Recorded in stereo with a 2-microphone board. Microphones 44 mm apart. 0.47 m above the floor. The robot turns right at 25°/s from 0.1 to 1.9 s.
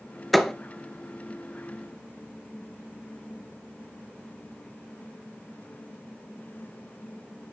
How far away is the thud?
About 1.3 m.